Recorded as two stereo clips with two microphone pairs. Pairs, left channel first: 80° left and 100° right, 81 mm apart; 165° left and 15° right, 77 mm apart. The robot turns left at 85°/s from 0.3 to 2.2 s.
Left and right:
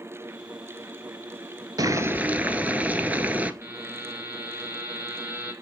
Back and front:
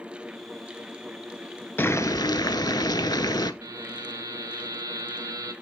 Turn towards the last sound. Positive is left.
turn(degrees=-55)